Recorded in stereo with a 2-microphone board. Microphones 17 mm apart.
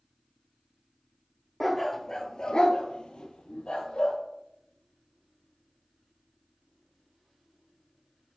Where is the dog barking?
5° left (ahead or behind), 0.7 m; by 4.2 s 75° left (ahead or behind), 1.3 m.